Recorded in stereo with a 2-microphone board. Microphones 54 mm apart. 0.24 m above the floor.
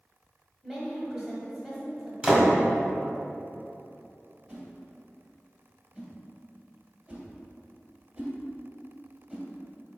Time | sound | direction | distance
0.6 | a woman speaking | 5° right (ahead or behind) | 1.1 m
2.2 | a door slam | 15° right (ahead or behind) | 0.8 m
4.5 | a whoosh | 30° right (ahead or behind) | 1.5 m